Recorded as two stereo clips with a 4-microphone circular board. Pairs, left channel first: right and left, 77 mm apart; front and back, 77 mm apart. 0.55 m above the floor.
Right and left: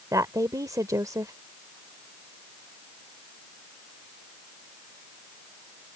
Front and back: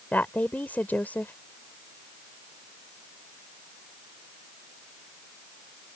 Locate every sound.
0.1 s a woman speaking: 65° left